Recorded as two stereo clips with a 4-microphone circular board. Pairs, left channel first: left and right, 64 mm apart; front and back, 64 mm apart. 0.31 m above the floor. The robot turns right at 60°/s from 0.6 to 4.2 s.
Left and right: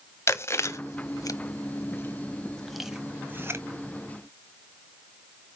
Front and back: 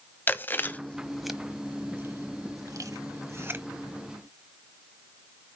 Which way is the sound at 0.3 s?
55° left.